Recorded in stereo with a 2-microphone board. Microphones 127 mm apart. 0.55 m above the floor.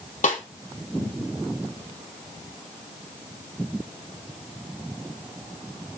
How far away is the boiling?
No boiling in this recording.